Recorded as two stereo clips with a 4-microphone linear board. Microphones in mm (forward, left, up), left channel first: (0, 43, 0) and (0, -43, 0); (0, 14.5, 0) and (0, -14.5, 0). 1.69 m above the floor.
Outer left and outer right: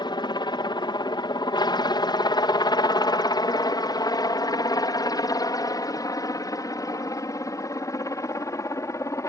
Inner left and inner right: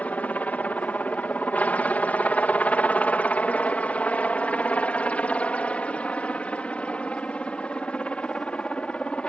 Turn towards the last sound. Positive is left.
turn(degrees=40)  # may be behind; listen again after turning